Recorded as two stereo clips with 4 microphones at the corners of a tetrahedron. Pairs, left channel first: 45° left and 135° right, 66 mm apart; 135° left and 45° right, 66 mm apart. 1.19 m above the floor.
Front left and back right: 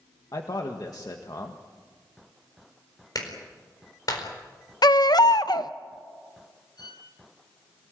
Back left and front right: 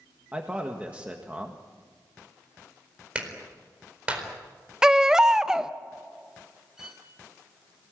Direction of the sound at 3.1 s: 25° left.